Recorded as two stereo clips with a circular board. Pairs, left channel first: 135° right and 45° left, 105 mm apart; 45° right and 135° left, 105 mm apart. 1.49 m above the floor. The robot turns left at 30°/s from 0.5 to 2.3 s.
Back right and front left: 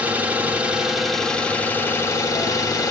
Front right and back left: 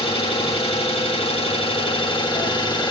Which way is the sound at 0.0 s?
30° right.